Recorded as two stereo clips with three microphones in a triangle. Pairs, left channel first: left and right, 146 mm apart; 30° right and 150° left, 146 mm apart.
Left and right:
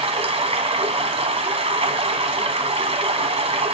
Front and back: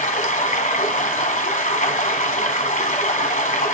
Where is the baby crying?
I don't hear a baby crying.